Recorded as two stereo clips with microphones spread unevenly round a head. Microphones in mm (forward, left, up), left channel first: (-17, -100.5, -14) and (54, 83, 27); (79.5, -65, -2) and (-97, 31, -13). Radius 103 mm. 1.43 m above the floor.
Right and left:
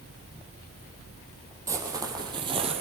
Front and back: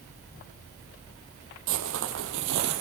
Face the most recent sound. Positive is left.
turn(degrees=120)